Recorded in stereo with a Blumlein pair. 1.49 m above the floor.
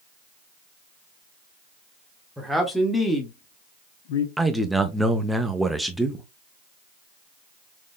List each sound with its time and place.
2.4 s a man speaking: 5° right, 1.3 m; by 4.3 s 60° left, 0.6 m
4.4 s a man speaking: 5° right, 0.6 m